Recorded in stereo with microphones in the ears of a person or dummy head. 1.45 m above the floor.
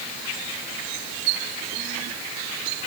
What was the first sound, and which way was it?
Only background noise.